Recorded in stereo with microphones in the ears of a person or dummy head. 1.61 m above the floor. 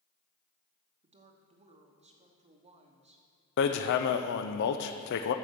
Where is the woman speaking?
25° right (ahead or behind), 1.0 m.